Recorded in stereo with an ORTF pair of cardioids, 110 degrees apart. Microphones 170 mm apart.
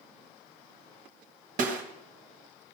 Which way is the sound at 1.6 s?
50° right.